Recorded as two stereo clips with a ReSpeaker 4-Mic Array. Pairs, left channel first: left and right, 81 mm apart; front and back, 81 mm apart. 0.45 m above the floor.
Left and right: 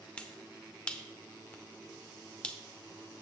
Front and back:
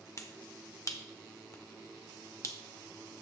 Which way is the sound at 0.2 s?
20° left.